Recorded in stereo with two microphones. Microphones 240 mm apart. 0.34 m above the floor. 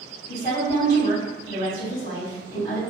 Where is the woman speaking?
40° left (ahead or behind), 1.9 m.